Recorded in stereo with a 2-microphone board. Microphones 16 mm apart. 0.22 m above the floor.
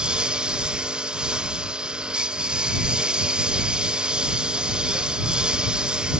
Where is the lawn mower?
90° right.